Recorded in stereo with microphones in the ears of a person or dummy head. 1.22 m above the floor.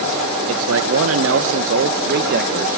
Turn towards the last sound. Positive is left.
turn(degrees=-45)  # may be behind; listen again after turning